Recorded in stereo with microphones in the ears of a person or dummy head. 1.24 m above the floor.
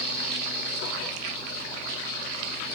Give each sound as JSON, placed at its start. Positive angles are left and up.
{"t": 0.0, "sound": "a fan", "side_deg": -5, "distance_m": 1.4}